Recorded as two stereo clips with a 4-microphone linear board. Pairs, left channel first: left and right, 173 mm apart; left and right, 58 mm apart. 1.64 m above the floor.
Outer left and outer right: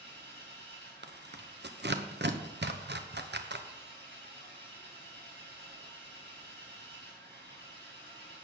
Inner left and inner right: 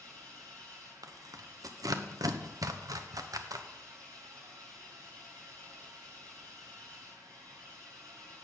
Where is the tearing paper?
80° right, 1.1 m.